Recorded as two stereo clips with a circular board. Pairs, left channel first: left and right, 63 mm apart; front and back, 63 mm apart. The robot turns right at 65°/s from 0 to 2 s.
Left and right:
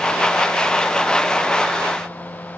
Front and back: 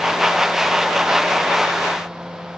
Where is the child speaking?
No child speaking in this recording.